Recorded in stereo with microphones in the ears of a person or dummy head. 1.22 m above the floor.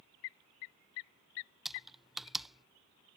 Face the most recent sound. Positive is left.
turn(degrees=0)  # may be behind; listen again after turning